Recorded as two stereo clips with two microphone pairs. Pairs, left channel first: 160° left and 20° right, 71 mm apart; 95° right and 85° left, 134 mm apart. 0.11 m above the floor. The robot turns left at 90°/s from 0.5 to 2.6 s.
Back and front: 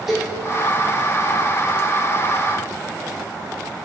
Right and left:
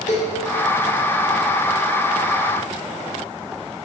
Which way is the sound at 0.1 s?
105° right.